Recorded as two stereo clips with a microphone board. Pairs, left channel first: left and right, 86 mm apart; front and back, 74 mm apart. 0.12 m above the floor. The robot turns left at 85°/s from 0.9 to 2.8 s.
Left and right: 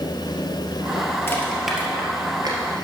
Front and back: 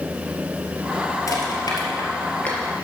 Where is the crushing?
30° left, 1.8 m; by 2.6 s 80° right, 1.8 m.